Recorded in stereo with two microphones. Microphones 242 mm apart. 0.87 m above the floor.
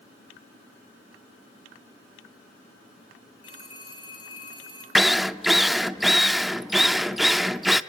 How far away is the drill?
About 0.6 m.